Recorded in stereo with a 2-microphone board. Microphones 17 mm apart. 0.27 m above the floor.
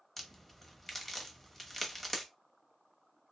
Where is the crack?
15° left (ahead or behind), 1.0 m.